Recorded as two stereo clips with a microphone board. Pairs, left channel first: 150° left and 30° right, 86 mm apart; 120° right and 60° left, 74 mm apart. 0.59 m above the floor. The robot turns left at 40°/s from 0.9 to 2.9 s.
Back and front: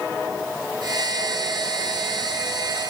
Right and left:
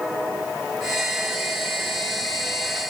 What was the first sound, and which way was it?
Only background noise.